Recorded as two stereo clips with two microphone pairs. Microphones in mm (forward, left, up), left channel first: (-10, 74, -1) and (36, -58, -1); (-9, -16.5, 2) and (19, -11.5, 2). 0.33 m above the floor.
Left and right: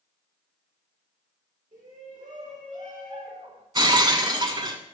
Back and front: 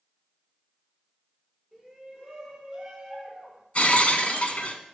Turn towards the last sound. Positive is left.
turn(degrees=-125)